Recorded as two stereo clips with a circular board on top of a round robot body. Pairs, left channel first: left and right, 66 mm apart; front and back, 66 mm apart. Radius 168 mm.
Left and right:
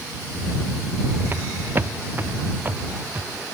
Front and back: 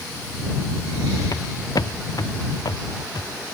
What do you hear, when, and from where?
1.3 s footsteps: 35° right; by 3.5 s 25° right